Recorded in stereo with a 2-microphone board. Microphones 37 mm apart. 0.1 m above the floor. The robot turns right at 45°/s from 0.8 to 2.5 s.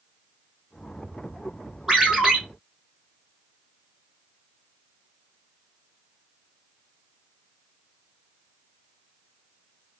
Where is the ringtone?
5° right (ahead or behind), 1.6 m; by 2.4 s 25° right (ahead or behind), 1.6 m.